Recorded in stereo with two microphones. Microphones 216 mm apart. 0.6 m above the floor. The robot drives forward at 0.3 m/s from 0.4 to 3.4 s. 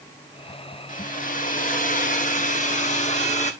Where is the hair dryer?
40° left (ahead or behind), 1.3 m; by 3.5 s 35° left (ahead or behind), 1.5 m.